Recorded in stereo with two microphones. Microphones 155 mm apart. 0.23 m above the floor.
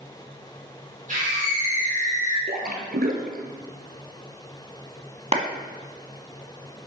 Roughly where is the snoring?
No snoring in this recording.